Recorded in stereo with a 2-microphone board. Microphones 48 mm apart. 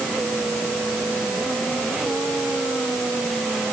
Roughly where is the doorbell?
No doorbell in this recording.